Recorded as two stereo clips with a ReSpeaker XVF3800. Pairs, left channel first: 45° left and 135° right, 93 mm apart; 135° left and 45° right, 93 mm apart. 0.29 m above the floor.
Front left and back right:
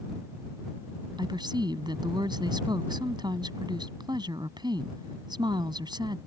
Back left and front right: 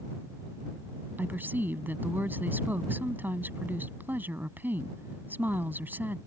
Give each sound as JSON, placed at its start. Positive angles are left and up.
{"t": 1.2, "sound": "a woman speaking", "azimuth_deg": -110}